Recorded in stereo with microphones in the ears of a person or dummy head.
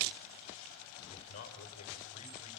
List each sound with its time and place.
1.1 s a man speaking: 85° left, 4.5 m